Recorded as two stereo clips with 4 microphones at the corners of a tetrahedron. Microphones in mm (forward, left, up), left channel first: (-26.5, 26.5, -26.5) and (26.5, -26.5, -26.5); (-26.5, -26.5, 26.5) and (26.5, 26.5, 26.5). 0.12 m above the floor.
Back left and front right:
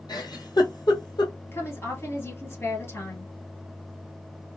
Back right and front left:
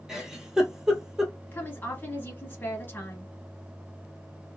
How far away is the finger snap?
No finger snap in this recording.